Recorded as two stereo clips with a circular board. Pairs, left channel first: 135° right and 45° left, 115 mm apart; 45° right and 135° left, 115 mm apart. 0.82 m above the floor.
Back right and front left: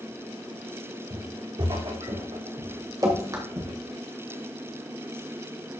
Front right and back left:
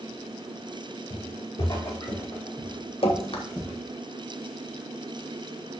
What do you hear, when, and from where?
1.1 s footsteps: straight ahead, 3 m; by 3.7 s 40° left, 4.5 m
3.0 s dripping: 10° right, 1.6 m